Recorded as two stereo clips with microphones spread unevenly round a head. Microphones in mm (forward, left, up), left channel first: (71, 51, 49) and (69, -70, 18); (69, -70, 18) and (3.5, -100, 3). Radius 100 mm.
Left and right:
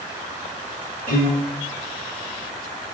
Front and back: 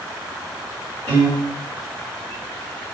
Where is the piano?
140° left, 1.2 m.